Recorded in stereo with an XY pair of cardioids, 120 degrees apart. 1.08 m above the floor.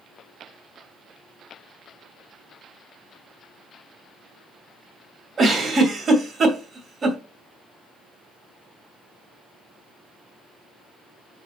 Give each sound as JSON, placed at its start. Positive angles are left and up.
{"t": 5.4, "sound": "a giggle", "azimuth_deg": -35, "distance_m": 2.5}